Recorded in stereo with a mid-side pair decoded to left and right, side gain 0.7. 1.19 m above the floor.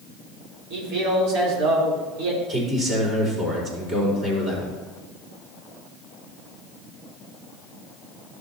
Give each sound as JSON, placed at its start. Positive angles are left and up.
{"t": 0.7, "sound": "a man speaking", "azimuth_deg": -65, "distance_m": 3.5}
{"t": 2.5, "sound": "a man speaking", "azimuth_deg": -30, "distance_m": 4.5}